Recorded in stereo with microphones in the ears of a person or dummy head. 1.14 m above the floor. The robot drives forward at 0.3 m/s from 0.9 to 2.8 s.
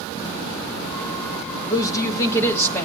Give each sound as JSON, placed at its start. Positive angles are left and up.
{"t": 1.7, "sound": "a woman speaking", "side_deg": 20, "distance_m": 0.7}